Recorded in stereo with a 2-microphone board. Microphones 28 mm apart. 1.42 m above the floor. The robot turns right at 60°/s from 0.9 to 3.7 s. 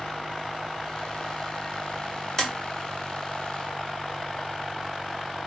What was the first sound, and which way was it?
Tapping, 20° left (ahead or behind).